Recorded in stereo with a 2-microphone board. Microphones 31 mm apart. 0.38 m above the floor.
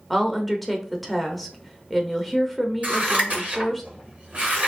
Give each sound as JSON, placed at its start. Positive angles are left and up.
{"t": 0.1, "sound": "a woman speaking", "side_deg": 0, "distance_m": 0.8}
{"t": 2.8, "sound": "scissors", "side_deg": -50, "distance_m": 2.5}